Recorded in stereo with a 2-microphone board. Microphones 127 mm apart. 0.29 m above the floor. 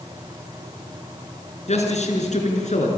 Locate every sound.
1.7 s a man speaking: 65° left (ahead or behind), 4.5 m; by 2.9 s 70° left (ahead or behind), 4.5 m